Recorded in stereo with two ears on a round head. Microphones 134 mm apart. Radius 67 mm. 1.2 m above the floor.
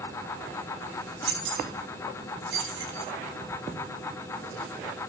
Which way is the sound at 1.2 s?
75° right (ahead or behind).